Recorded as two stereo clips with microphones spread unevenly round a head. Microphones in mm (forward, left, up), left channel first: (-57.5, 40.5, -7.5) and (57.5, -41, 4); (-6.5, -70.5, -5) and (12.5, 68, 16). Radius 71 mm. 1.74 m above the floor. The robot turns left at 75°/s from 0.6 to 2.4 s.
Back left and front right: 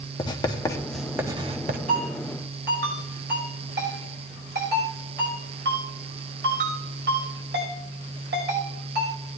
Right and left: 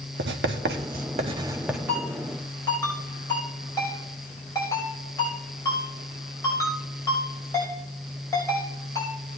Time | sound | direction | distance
0.2 | writing | 85° left | 0.9 m
1.9 | a ringtone | 10° left | 5.5 m